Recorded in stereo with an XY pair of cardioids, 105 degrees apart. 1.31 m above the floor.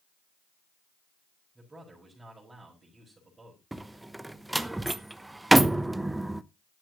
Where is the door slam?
10° right, 0.9 m.